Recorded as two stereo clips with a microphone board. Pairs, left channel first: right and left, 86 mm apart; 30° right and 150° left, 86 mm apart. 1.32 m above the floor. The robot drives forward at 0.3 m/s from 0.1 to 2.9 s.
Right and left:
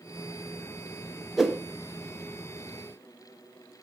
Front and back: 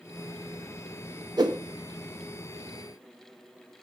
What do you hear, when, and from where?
1.4 s a whoosh: 175° left, 0.8 m